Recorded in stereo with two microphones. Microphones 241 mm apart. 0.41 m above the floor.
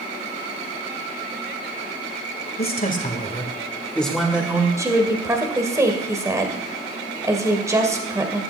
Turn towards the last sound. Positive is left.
turn(degrees=-15)  # may be behind; listen again after turning